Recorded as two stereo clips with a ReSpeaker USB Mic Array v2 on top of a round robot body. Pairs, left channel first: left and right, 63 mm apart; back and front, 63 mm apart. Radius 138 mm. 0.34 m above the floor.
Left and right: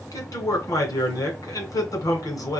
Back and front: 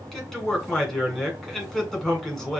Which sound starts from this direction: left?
A man speaking, at 0.1 s.